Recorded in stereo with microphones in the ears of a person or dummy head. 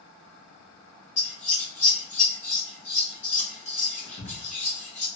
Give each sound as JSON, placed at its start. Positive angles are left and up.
{"t": 1.2, "sound": "scissors", "side_deg": 35, "distance_m": 0.9}